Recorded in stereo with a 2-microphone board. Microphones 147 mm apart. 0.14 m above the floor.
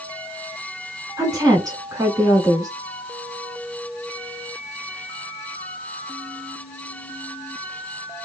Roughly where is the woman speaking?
Right.